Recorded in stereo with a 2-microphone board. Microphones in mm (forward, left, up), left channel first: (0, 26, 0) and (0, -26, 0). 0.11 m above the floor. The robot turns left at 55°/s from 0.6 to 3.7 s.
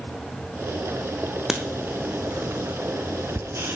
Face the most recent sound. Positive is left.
turn(degrees=-50)  # may be behind; listen again after turning